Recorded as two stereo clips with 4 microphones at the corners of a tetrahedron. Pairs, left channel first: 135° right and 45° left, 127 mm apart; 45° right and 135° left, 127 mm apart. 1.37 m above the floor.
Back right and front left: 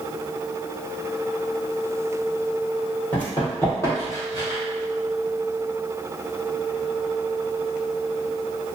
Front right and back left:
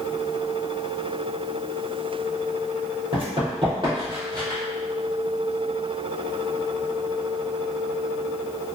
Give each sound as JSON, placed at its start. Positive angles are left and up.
{"t": 3.1, "sound": "running footsteps", "azimuth_deg": 155, "distance_m": 1.9}